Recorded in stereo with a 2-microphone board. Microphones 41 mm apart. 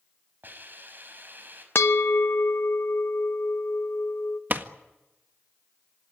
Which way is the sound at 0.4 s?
45° right (ahead or behind).